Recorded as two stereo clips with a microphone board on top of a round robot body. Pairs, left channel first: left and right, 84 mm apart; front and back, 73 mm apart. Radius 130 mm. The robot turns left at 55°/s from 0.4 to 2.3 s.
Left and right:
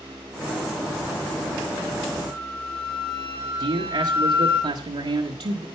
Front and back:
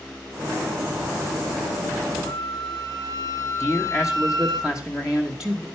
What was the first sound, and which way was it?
A flute, 160° right.